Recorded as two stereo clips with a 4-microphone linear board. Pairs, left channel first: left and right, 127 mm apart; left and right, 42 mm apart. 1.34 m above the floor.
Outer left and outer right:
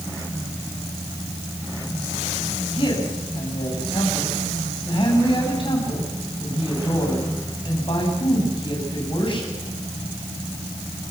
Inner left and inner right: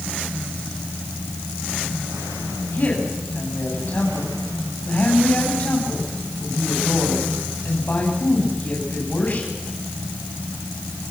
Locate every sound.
2.7 s a woman speaking: 40° left (ahead or behind), 8 m